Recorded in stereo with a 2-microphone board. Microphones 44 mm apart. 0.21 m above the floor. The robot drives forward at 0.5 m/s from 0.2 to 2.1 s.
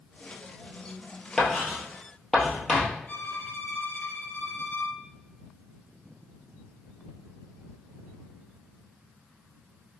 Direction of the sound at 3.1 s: 60° left (ahead or behind).